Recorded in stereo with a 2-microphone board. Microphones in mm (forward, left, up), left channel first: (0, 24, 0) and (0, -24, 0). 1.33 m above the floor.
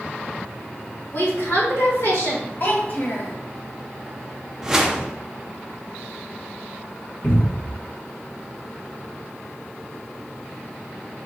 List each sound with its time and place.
1.1 s a woman speaking: 75° left (ahead or behind), 1.7 m
2.6 s a child speaking: 40° left (ahead or behind), 1.2 m
4.6 s a whoosh: 10° right (ahead or behind), 0.6 m
7.2 s a cupboard door: 60° left (ahead or behind), 1.7 m